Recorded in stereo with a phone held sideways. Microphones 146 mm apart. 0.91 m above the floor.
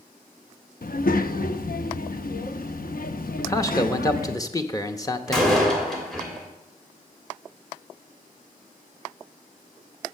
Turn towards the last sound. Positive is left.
turn(degrees=0)  # may be behind; listen again after turning